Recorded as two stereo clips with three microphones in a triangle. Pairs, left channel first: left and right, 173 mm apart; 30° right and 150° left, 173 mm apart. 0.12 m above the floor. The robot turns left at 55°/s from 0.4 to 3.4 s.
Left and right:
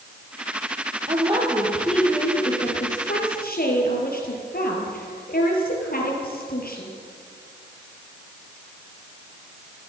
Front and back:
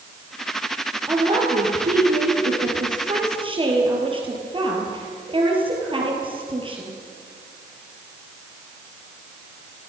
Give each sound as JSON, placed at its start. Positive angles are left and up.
{"t": 1.1, "sound": "a woman speaking", "azimuth_deg": -135, "distance_m": 3.0}